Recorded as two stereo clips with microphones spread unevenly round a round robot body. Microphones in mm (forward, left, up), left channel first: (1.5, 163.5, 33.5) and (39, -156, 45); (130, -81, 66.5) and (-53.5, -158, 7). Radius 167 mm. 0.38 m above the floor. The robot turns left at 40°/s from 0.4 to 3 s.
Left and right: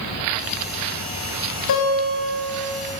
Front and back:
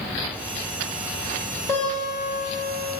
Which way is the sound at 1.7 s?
125° left.